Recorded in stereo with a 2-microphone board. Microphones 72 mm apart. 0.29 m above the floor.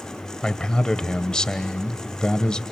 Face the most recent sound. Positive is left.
turn(degrees=10)  # may be behind; listen again after turning